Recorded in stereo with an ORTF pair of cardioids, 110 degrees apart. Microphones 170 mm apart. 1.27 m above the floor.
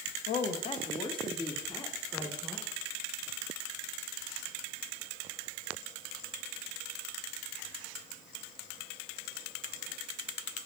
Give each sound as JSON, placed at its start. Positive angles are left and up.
{"t": 0.3, "sound": "a woman speaking", "azimuth_deg": 55, "distance_m": 0.9}